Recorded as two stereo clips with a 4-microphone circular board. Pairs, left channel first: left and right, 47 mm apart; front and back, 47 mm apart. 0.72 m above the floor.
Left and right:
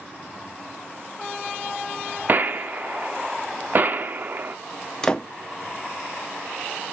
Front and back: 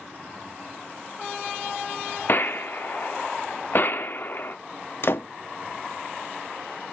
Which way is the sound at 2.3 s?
40° right.